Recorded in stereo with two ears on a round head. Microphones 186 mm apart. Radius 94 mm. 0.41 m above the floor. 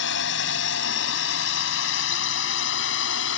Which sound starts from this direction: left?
A drone, at 0.0 s.